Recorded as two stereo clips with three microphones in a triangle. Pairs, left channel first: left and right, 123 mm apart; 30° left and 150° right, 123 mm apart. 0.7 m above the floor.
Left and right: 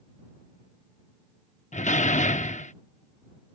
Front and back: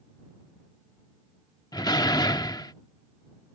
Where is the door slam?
85° left.